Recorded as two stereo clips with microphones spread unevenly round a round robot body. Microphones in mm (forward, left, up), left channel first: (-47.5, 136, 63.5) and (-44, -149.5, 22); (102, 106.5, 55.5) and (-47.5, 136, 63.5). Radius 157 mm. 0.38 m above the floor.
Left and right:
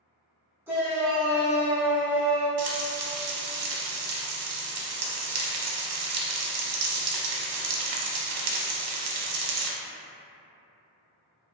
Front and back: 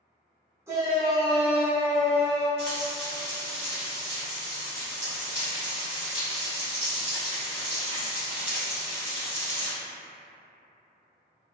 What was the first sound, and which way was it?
A shout, 140° right.